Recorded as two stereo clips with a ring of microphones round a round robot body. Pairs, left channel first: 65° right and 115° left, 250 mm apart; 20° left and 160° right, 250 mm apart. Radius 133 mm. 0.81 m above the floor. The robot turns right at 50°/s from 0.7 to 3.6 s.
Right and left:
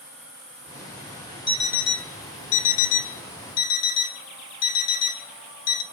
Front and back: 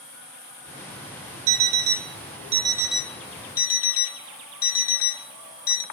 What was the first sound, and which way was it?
An alarm clock, 140° right.